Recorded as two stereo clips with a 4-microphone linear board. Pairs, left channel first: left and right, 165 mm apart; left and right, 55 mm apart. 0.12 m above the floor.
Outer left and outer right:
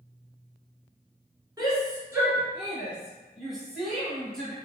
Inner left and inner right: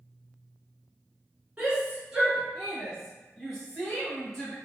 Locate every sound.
1.6 s a shout: 25° right (ahead or behind), 1.2 m; by 4.5 s 5° left (ahead or behind), 1.9 m